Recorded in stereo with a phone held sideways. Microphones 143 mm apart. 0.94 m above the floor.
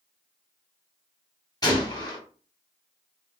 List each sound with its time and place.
1.6 s a gunshot: 30° left (ahead or behind), 0.9 m